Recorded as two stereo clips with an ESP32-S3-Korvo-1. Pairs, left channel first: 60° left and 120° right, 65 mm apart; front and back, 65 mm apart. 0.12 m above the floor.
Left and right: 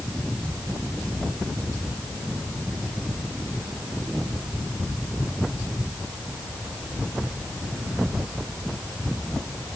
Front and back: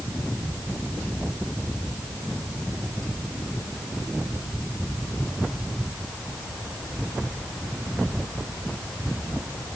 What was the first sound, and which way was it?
Only background noise.